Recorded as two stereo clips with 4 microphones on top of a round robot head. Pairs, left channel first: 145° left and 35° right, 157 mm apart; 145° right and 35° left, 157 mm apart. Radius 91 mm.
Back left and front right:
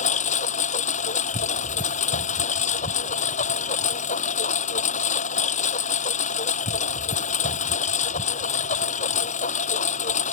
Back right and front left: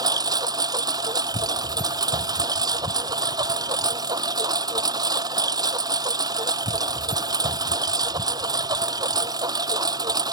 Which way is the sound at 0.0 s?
100° left.